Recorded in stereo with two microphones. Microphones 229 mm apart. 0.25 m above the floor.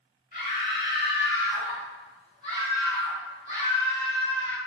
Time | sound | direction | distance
0.3 | a scream | 35° left (ahead or behind) | 1.9 m